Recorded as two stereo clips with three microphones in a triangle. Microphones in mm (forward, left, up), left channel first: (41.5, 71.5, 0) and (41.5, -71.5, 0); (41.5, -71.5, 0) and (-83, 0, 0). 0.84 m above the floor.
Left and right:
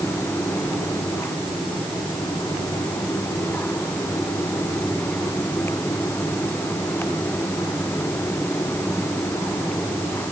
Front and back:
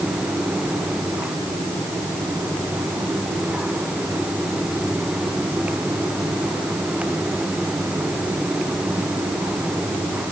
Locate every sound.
Only background noise.